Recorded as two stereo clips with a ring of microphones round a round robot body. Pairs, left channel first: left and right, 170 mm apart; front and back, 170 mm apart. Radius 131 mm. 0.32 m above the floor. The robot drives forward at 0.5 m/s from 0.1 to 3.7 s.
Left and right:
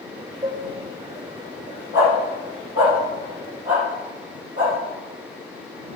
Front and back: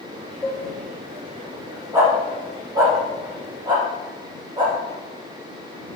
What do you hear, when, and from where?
0.4 s dishes clattering: 65° right, 0.9 m; by 0.6 s 80° right, 0.9 m
1.9 s a dog barking: 105° left, 4 m; by 6.0 s 115° left, 4 m